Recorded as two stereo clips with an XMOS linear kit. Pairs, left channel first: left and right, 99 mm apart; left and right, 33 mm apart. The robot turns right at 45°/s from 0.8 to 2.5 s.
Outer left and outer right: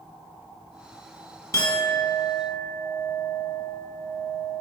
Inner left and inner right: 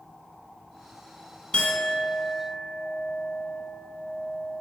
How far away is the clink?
About 0.8 m.